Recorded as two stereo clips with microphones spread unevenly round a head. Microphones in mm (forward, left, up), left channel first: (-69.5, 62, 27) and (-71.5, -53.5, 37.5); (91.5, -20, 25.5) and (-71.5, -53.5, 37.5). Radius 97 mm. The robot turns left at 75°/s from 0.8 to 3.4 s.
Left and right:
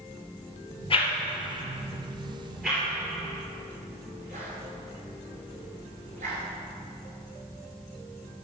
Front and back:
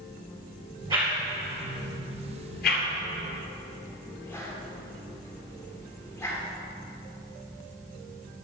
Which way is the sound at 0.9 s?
120° left.